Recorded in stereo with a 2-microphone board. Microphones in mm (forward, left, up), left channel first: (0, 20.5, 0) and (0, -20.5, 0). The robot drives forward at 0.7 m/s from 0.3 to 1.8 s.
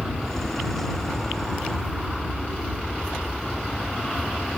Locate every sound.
0.0 s an aircraft: 5° right (ahead or behind); by 4.6 s 5° left (ahead or behind)